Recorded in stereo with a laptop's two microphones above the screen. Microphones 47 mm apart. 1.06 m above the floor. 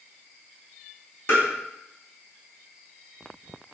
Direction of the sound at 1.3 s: 50° left (ahead or behind).